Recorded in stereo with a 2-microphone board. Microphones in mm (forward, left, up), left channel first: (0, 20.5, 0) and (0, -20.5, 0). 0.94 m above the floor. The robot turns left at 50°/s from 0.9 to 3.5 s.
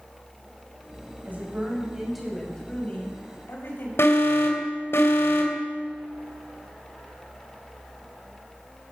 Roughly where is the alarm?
Left.